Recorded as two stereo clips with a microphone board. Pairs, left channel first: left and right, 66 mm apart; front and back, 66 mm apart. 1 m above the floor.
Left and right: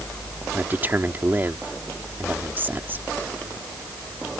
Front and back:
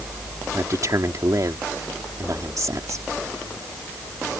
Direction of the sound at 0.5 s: 150° right.